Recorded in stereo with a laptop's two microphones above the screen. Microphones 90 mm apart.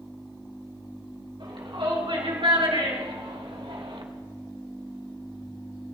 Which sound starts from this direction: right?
A shout, at 1.4 s.